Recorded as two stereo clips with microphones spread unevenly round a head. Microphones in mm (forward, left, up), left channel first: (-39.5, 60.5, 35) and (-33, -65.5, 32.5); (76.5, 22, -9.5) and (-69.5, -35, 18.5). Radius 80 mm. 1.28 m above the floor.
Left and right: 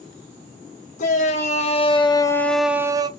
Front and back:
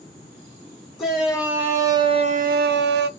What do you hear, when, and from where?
1.0 s a shout: 115° left, 1.3 m; by 3.1 s 145° right, 0.7 m